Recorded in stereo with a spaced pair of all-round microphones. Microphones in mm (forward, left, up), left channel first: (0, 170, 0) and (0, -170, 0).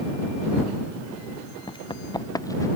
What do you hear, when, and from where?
1.7 s running footsteps: 15° left (ahead or behind); by 2.7 s 10° left (ahead or behind)